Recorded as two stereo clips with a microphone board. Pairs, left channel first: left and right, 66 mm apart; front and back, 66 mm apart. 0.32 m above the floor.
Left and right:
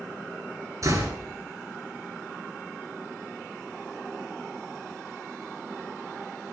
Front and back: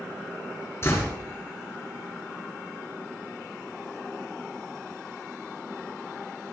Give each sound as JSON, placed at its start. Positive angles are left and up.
{"t": 0.8, "sound": "a door slam", "azimuth_deg": -50, "distance_m": 4.0}